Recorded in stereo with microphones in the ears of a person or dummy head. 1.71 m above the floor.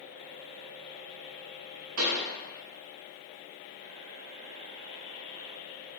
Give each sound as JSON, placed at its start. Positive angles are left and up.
{"t": 2.0, "sound": "a pop", "side_deg": -80, "distance_m": 1.2}